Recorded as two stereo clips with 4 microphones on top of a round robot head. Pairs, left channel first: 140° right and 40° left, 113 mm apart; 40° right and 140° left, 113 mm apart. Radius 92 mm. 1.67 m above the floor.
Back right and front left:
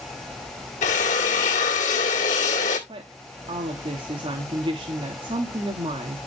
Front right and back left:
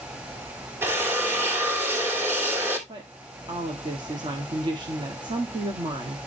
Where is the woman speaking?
90° left, 1.5 m.